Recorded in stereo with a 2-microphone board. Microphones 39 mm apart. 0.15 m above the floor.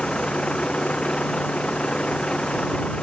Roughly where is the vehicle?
Left.